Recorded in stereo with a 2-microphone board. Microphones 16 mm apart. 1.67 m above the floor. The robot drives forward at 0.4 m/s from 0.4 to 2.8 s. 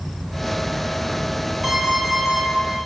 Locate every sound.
1.6 s an alarm clock: 10° right (ahead or behind), 4 m